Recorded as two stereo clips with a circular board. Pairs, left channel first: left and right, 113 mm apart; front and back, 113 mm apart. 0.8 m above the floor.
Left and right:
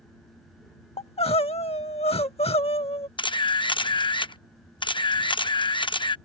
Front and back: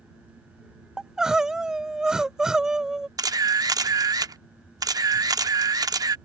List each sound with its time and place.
1.0 s crying: 95° left
3.2 s a camera shutter: 130° left